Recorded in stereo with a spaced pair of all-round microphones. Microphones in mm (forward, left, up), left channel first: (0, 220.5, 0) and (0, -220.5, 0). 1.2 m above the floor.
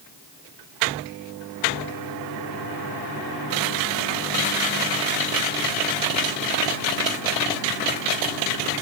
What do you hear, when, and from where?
Only background noise.